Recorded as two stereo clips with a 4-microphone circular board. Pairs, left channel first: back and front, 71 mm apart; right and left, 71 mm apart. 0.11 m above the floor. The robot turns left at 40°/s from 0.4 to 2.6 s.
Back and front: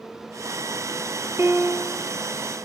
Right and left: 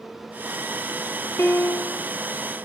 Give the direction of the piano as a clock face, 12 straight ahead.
1 o'clock.